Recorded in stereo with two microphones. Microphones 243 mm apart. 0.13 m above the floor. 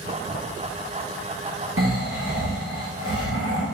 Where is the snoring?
65° right (ahead or behind), 5 m.